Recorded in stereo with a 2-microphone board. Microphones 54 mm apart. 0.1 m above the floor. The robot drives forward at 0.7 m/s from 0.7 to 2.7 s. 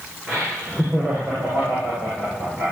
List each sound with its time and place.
0.3 s laughter: 5° right (ahead or behind), 9.5 m